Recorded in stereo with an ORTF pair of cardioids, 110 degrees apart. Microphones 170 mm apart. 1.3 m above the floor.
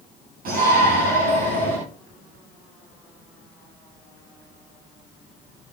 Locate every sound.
0.5 s a shout: 60° right, 10 m; by 1.8 s 55° right, 11 m